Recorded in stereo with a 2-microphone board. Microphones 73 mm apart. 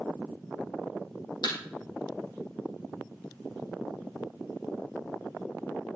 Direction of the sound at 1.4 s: 75° left (ahead or behind).